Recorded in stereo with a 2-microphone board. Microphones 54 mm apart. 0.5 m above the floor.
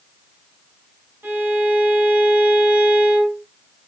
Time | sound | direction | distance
1.2 | a violin | 40° right (ahead or behind) | 1.0 m